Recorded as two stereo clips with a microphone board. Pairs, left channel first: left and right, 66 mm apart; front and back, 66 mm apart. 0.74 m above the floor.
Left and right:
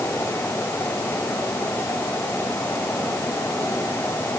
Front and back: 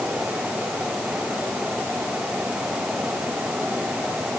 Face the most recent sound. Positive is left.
No sound to turn to.